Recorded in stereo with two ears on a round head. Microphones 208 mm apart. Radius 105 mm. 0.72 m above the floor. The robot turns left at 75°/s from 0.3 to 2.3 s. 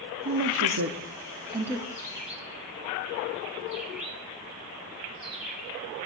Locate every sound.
0.2 s a woman speaking: 55° right (ahead or behind), 0.9 m; by 1.9 s 5° left (ahead or behind), 0.9 m
1.9 s a bird: 15° left (ahead or behind), 1.7 m; by 6.1 s 5° right (ahead or behind), 1.7 m